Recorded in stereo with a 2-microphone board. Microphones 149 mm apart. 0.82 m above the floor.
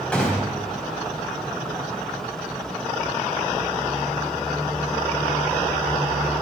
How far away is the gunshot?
About 4 m.